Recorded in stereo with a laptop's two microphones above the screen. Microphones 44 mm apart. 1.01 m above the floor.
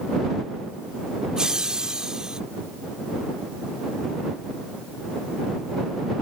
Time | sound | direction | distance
1.4 | laughter | 15° right (ahead or behind) | ?